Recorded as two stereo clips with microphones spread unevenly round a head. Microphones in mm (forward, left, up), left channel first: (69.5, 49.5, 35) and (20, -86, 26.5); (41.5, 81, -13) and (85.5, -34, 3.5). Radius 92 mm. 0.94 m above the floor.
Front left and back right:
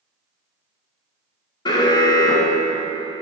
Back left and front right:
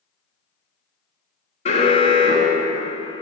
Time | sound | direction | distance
1.6 | an alarm | 135° left | 2 m